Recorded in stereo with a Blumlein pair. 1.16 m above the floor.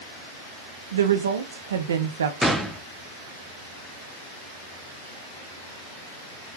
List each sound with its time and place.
0.9 s a woman speaking: 65° right, 0.5 m
2.4 s a gunshot: 5° right, 0.5 m